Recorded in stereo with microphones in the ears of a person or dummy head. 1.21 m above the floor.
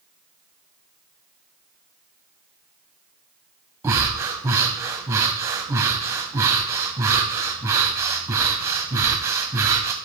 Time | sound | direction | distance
3.8 | breathing | 15° right (ahead or behind) | 1.3 m